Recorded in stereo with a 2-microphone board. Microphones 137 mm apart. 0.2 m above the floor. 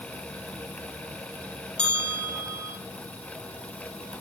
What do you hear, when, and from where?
1.8 s a bell: 10° left (ahead or behind), 4 m